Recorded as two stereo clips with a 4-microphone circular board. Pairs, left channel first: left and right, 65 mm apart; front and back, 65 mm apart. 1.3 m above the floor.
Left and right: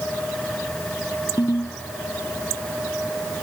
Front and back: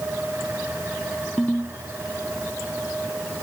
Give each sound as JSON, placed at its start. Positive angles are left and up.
{"t": 1.4, "sound": "a ringtone", "azimuth_deg": 70}